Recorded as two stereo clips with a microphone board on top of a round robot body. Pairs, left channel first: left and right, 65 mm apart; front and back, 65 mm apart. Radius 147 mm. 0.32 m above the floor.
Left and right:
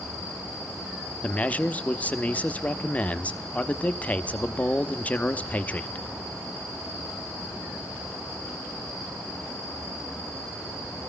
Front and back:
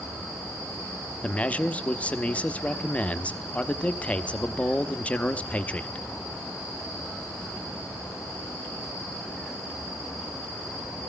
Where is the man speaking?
45° left, 0.9 m.